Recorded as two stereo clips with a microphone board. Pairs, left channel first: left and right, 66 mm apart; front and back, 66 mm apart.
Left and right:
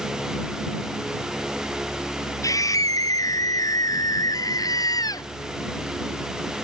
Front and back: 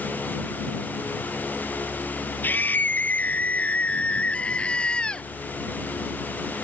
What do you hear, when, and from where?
2.4 s a scream: 60° left; by 5.3 s 75° left